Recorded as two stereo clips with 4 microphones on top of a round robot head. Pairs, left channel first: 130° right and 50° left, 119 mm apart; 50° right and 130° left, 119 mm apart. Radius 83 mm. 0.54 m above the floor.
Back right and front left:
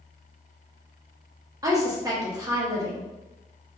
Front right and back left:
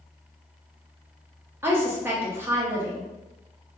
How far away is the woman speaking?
About 0.9 m.